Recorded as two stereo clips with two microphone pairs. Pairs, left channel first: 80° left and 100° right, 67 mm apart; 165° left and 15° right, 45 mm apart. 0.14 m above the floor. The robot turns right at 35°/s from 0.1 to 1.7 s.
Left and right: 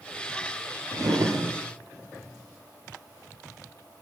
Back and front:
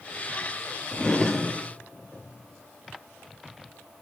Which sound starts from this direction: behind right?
A drawer, at 0.9 s.